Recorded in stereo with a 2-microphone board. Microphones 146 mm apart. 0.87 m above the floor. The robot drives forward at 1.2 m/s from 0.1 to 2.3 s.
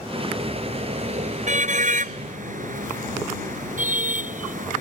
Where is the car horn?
50° right (ahead or behind); by 4.8 s 65° right (ahead or behind).